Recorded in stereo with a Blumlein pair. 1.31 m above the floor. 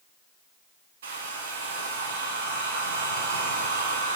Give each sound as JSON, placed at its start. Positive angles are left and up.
{"t": 1.0, "sound": "a hair dryer", "azimuth_deg": -60, "distance_m": 0.6}